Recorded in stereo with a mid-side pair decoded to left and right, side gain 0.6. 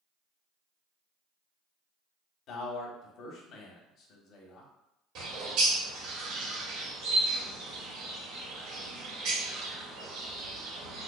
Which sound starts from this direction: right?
A bird, at 5.2 s.